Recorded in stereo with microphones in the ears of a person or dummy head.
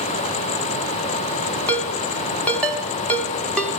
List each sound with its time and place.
1.7 s a ringtone: 5° left (ahead or behind), 1.3 m